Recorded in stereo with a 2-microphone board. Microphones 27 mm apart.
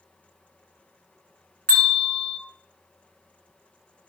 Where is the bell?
50° left (ahead or behind), 2.5 m.